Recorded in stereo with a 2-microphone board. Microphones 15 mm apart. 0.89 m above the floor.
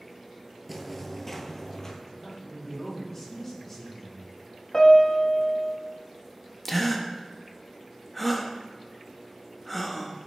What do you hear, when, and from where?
0.7 s footsteps: centre (ahead or behind), 1.1 m; by 1.9 s 35° left (ahead or behind), 1.5 m
2.0 s a man speaking: 20° left (ahead or behind), 3 m
4.7 s a piano: 45° left (ahead or behind), 1.2 m
6.7 s a gasp: 5° left (ahead or behind), 0.8 m